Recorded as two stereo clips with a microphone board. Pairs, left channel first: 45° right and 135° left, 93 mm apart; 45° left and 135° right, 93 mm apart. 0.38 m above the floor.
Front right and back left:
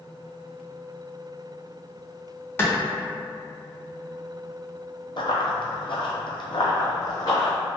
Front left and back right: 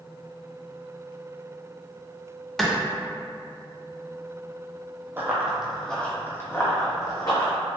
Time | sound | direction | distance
2.6 | a clap | 40° right | 0.7 m
5.2 | running footsteps | 70° right | 0.7 m